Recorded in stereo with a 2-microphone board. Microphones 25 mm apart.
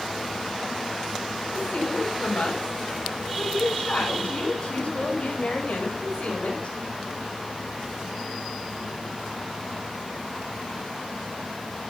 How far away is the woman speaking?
About 7.5 m.